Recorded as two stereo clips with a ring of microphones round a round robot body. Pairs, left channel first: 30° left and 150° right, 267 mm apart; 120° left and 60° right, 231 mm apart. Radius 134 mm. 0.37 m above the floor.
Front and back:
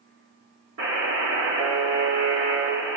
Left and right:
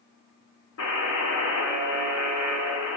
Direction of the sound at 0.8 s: 165° left.